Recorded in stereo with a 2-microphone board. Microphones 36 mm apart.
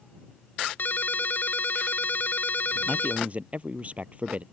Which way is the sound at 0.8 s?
55° left (ahead or behind).